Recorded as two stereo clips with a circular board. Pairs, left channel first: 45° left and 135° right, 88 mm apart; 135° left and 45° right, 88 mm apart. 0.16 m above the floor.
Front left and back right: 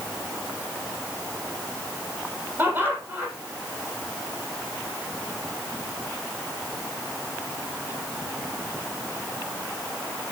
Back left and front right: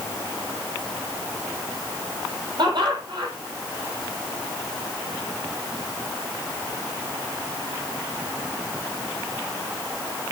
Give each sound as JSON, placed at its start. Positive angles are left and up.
{"t": 2.6, "sound": "laughter", "azimuth_deg": -65, "distance_m": 7.0}